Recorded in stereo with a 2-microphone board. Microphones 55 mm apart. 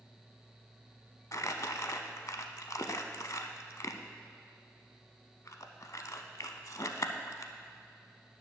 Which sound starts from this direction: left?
Crumpling, at 1.3 s.